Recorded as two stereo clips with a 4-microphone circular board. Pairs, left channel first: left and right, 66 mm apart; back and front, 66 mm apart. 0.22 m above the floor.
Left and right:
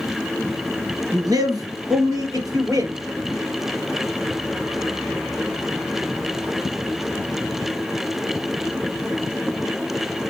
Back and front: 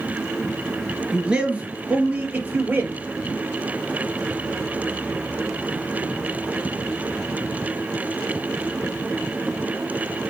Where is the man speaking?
80° right, 3 m; by 3.0 s 60° right, 4.5 m.